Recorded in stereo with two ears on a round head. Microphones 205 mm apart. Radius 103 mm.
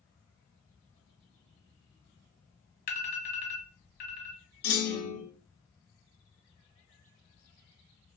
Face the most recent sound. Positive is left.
turn(degrees=50)  # may be behind; listen again after turning